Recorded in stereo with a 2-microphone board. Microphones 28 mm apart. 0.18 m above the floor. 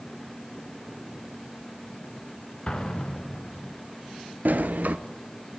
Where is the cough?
No cough in this recording.